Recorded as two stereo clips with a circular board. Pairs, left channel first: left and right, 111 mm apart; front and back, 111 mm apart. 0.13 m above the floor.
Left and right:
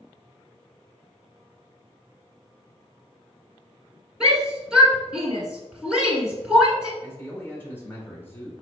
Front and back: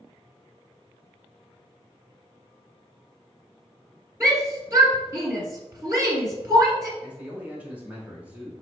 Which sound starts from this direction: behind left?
A man speaking, at 7.0 s.